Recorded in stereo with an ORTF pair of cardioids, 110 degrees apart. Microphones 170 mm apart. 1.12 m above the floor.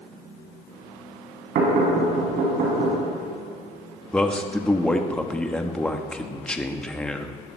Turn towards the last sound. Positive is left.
turn(degrees=5)